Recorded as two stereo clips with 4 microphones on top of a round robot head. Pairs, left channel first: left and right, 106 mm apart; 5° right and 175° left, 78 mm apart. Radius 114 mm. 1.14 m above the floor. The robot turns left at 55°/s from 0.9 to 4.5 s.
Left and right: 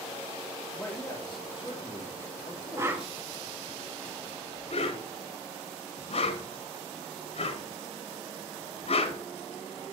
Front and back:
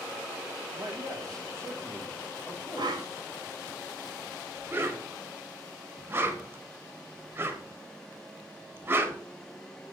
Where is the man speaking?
155° left, 3.5 m; by 3.2 s 30° left, 3.5 m.